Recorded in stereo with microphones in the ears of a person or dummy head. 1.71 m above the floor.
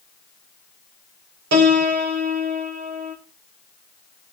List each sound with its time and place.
1.5 s a piano: 65° right (ahead or behind), 1.8 m